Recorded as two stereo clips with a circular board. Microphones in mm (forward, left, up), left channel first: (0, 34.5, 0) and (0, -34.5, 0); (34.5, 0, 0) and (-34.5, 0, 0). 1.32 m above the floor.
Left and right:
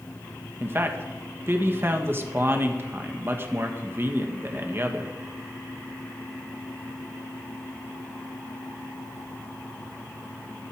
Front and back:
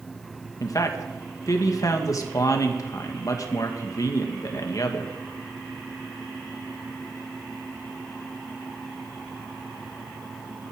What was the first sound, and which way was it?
A man speaking, 35° right.